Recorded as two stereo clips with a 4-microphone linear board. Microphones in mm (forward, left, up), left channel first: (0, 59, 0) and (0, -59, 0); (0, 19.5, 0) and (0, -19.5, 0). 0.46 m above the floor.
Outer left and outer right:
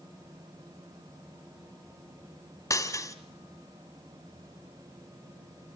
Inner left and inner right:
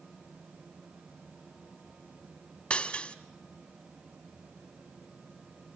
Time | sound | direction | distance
2.7 | breaking glass | 25° left (ahead or behind) | 1.5 m